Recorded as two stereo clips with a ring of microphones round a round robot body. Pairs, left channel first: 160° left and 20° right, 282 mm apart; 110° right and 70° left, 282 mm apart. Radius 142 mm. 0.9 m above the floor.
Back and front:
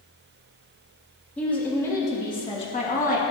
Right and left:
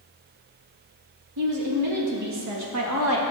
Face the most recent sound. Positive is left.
turn(degrees=100)